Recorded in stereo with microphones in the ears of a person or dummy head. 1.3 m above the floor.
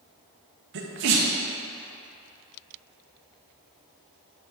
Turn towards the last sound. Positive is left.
turn(degrees=-60)  # may be behind; listen again after turning